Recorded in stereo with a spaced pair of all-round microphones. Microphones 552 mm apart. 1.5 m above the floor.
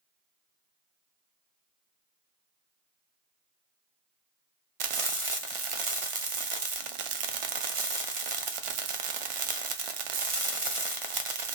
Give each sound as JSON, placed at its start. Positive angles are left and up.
{"t": 4.8, "sound": "frying", "side_deg": -65, "distance_m": 0.5}